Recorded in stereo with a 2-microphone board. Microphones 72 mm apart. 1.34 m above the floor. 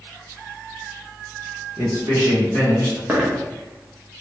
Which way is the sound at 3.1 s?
20° right (ahead or behind).